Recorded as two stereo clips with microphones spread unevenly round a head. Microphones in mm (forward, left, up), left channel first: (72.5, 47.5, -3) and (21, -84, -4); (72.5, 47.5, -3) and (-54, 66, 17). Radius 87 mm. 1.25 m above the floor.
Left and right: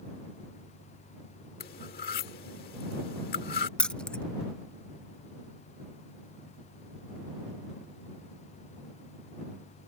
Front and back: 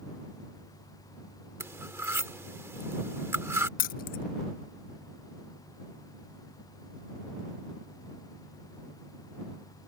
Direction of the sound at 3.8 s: 15° right.